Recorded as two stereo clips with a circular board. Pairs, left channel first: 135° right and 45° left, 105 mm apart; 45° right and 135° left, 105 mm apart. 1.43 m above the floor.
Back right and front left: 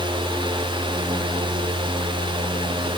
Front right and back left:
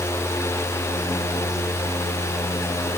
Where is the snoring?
No snoring in this recording.